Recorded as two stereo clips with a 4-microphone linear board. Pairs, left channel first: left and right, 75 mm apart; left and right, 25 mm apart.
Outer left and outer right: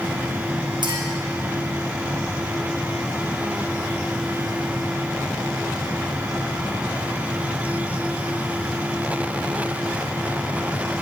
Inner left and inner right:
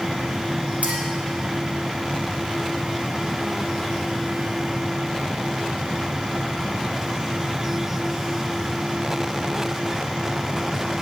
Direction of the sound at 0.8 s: 75° right (ahead or behind).